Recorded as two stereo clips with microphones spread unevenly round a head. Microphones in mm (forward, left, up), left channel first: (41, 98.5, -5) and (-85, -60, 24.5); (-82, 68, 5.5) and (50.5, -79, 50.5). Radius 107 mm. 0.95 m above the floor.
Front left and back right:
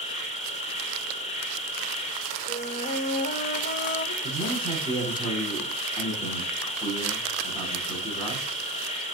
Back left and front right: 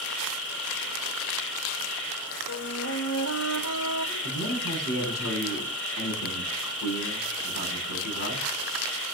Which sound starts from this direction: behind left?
A man speaking, at 4.2 s.